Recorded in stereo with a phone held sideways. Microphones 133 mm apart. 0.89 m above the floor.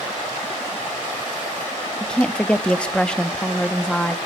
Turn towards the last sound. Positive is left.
turn(degrees=5)  # may be behind; listen again after turning